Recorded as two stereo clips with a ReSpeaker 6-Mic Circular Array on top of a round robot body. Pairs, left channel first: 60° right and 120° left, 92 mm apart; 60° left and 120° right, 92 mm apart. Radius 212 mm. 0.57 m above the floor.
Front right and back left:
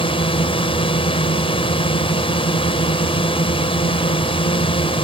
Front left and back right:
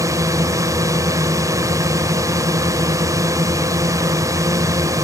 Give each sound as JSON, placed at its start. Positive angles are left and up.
{"t": 0.0, "sound": "a drone", "azimuth_deg": -65}